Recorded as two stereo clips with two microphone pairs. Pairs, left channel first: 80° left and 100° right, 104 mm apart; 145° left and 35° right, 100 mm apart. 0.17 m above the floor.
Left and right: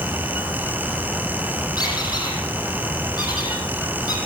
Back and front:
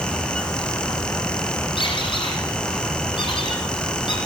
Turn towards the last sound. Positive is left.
turn(degrees=125)